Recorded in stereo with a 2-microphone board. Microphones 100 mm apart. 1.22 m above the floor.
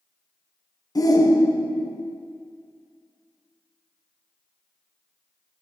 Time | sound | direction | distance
0.9 | a shout | 40° left (ahead or behind) | 0.8 m